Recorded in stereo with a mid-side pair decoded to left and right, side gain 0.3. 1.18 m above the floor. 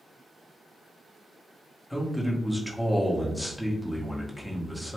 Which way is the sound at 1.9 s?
10° left.